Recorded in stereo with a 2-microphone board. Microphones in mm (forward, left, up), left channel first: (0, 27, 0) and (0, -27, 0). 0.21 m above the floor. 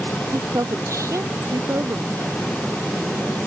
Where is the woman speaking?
80° right.